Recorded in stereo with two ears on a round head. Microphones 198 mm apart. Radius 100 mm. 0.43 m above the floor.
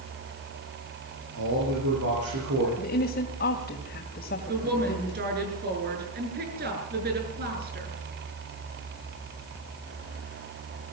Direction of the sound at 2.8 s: 45° left (ahead or behind).